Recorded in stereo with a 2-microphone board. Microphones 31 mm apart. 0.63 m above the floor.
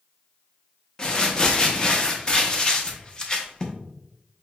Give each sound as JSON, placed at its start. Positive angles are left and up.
{"t": 1.0, "sound": "crumpling", "side_deg": 25, "distance_m": 0.5}